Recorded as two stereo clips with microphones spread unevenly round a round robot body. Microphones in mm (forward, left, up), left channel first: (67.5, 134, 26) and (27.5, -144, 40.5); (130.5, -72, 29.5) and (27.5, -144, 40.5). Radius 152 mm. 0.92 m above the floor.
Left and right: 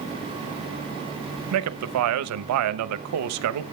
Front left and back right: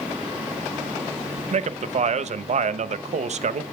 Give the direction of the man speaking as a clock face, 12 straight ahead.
4 o'clock.